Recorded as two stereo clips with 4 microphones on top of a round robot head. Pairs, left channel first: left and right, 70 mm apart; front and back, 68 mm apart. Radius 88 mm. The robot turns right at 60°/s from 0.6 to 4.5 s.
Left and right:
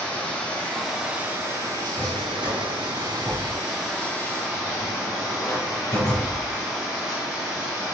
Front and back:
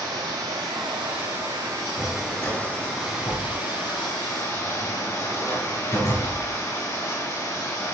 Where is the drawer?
110° right, 7 m; by 6.5 s 45° left, 7 m.